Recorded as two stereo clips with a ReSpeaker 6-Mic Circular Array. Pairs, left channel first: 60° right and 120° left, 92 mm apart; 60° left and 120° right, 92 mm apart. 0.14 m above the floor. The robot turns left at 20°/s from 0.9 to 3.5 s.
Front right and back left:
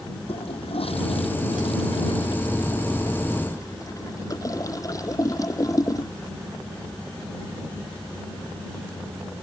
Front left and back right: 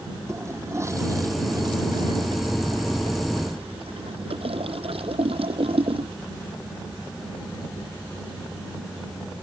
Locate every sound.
0.3 s a toilet flushing: 60° right; by 6.1 s 115° right